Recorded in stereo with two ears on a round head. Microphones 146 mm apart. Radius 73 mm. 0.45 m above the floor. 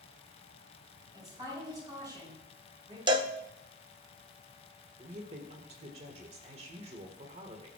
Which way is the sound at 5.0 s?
40° right (ahead or behind).